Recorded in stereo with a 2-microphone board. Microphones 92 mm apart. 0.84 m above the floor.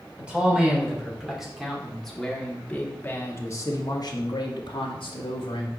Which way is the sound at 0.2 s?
10° right (ahead or behind).